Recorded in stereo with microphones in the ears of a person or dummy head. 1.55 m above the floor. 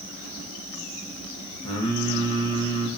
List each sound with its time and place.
1.6 s singing: 25° left (ahead or behind), 0.5 m